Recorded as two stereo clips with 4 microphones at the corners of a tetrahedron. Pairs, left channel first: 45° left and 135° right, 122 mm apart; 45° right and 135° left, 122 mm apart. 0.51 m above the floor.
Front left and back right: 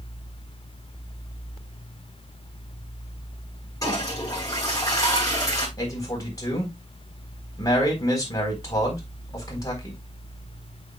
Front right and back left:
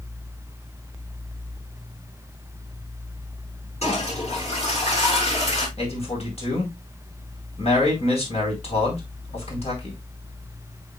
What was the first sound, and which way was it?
A toilet flushing, 20° right.